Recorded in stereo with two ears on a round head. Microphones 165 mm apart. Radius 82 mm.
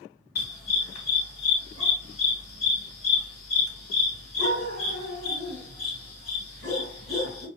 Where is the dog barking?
50° left (ahead or behind), 2 m.